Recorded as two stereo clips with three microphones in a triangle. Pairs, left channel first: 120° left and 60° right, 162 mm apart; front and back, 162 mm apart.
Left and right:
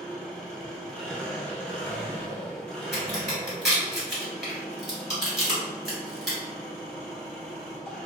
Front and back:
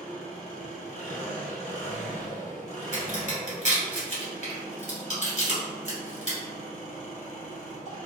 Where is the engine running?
35° left, 1.7 m.